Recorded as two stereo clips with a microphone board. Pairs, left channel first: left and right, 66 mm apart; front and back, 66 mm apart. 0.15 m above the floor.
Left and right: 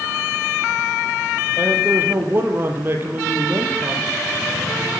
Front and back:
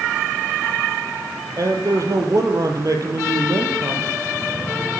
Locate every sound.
1.6 s a man speaking: 145° right, 4.5 m